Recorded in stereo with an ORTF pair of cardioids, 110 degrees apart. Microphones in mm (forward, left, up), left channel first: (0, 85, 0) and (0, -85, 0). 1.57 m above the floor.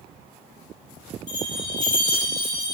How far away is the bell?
About 1.5 m.